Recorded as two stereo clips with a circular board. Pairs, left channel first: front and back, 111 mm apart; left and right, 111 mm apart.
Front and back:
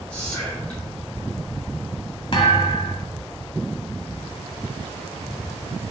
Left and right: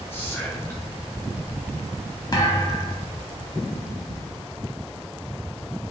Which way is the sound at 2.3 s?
35° left.